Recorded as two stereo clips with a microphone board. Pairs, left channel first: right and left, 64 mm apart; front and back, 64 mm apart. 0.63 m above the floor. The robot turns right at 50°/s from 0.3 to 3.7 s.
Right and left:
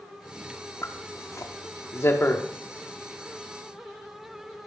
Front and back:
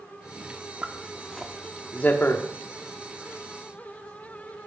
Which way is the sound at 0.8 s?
120° right.